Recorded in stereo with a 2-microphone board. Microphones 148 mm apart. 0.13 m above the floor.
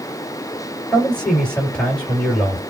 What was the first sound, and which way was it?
A man speaking, 5° left (ahead or behind).